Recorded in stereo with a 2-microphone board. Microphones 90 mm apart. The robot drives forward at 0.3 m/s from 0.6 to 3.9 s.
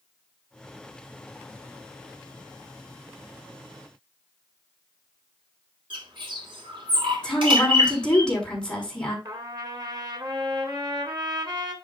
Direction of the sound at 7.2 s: 10° left (ahead or behind).